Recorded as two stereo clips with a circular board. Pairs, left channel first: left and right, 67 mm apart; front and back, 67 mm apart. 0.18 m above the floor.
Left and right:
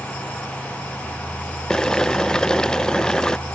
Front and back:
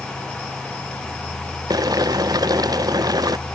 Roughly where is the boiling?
Behind.